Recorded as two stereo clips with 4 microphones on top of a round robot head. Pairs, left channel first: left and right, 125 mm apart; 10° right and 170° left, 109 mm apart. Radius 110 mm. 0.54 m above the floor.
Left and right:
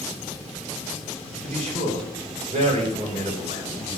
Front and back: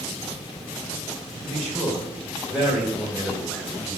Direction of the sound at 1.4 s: 95° right.